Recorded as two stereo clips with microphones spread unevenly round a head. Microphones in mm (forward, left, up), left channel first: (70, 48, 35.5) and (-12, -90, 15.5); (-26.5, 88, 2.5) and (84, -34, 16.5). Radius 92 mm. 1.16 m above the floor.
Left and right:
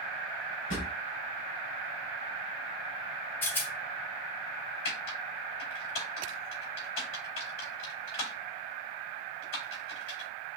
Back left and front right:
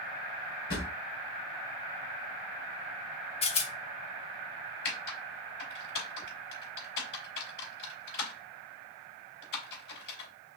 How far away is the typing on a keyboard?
About 3.5 m.